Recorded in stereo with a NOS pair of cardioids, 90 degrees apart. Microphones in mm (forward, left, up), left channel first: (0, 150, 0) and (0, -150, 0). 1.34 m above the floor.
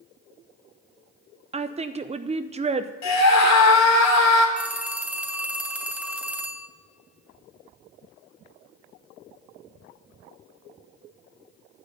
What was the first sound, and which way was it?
A woman speaking, 20° right.